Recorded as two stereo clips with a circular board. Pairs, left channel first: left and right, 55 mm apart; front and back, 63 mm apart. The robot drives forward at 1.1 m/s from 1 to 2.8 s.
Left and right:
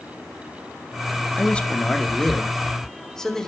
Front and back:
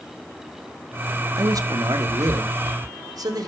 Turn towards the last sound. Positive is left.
turn(degrees=170)